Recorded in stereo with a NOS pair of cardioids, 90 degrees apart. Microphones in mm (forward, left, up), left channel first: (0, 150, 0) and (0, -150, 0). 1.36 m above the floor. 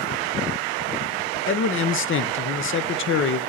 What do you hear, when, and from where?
1.5 s a man speaking: 45° left, 0.6 m